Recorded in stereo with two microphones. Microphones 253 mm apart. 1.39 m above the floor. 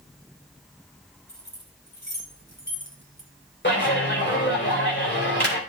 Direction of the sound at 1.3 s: 45° left (ahead or behind).